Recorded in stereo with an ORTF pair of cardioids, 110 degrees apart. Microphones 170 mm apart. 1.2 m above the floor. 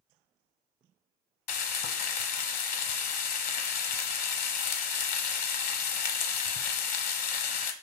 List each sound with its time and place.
1.5 s frying: 60° left, 0.8 m